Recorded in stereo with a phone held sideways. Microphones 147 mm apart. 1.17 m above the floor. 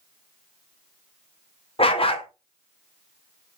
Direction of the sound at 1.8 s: 40° left (ahead or behind).